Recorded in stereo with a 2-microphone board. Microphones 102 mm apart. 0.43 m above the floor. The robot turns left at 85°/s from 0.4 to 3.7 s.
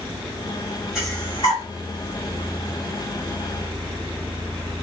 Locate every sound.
0.9 s breathing: 5° right (ahead or behind), 1.5 m; by 1.6 s 50° left (ahead or behind), 1.5 m